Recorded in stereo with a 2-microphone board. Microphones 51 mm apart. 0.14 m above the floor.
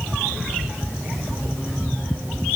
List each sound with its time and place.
Only background noise.